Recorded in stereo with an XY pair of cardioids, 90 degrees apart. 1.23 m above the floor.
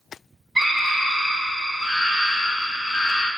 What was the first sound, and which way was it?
A scream, 45° right.